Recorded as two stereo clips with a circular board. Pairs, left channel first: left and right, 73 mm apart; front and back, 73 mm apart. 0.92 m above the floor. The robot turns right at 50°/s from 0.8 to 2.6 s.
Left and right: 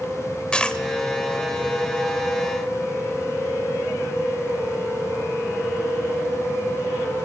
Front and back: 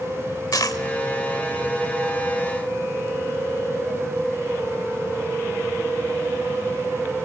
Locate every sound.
0.5 s a dropped coin: 15° left, 1.1 m